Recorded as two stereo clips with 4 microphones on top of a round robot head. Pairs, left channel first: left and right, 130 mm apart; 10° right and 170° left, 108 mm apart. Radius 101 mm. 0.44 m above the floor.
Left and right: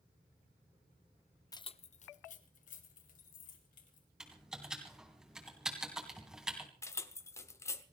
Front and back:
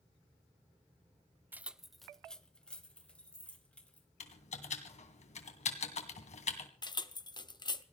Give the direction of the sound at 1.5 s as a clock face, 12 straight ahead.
8 o'clock.